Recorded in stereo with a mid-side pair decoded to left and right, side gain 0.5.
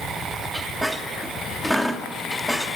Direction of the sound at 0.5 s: Straight ahead.